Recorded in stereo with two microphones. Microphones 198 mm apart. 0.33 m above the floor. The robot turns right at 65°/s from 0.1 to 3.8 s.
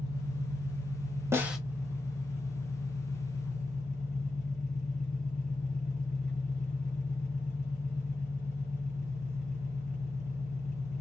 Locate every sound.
0.0 s an engine running: 110° right, 1.9 m; by 11.0 s 130° left, 1.9 m
1.3 s a snare drum: 15° right (ahead or behind), 0.8 m; by 1.6 s centre (ahead or behind), 0.8 m